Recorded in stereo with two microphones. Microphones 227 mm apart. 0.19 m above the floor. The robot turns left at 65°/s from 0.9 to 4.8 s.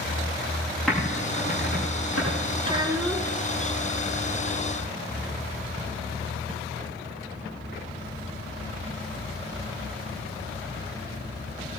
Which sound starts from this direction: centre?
Typing on a keyboard, at 0.9 s.